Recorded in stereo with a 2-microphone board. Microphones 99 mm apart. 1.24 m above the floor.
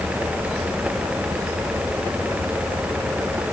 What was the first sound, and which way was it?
Only background noise.